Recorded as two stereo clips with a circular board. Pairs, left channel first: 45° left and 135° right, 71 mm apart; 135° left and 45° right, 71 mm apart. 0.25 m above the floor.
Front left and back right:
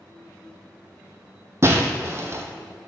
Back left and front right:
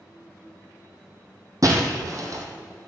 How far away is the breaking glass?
About 1.8 m.